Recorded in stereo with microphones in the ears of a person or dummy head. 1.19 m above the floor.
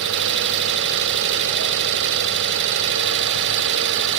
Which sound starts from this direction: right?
An engine running, at 0.0 s.